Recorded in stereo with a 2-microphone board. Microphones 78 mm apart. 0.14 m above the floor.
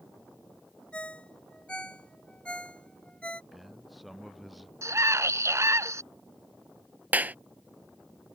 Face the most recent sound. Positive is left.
turn(degrees=-20)  # may be behind; listen again after turning